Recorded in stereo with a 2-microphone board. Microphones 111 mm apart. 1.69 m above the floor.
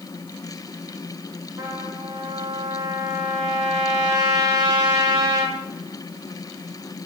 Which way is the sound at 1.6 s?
40° right (ahead or behind).